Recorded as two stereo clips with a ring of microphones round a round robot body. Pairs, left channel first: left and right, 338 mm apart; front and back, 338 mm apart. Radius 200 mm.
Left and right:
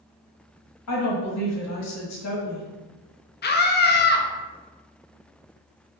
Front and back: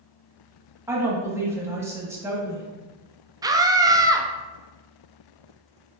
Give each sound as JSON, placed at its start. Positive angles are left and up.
{"t": 0.9, "sound": "a woman speaking", "azimuth_deg": 100, "distance_m": 1.2}
{"t": 3.4, "sound": "a scream", "azimuth_deg": 110, "distance_m": 0.5}